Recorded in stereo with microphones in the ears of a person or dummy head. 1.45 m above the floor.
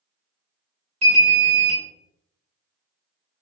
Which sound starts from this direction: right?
An alarm, at 1.0 s.